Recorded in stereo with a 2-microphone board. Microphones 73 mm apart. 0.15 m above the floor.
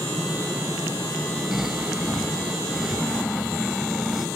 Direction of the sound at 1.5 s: 5° right (ahead or behind).